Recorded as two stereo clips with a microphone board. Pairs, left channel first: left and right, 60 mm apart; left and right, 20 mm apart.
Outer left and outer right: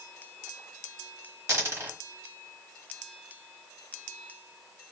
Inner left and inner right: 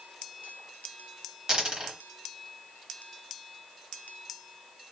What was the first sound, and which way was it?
A dropped coin, 45° right (ahead or behind).